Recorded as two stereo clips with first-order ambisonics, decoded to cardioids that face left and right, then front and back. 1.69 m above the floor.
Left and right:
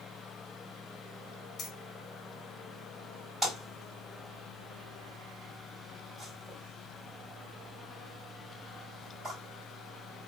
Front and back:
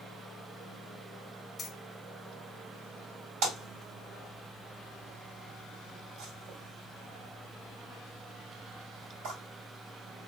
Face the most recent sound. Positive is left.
turn(degrees=-175)